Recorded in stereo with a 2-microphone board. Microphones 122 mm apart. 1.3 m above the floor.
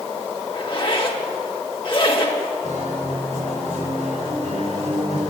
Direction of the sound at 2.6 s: 80° right.